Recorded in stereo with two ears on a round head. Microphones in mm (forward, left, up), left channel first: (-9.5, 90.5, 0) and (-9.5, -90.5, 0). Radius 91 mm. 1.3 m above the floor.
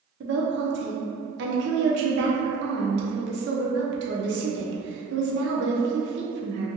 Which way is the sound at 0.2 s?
55° right (ahead or behind).